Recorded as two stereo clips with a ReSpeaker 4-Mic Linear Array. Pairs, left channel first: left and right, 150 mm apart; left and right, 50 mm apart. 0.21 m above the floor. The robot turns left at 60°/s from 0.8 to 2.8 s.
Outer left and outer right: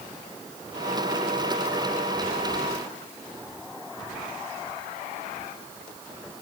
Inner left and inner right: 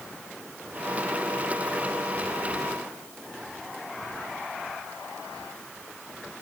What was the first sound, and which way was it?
Only background noise.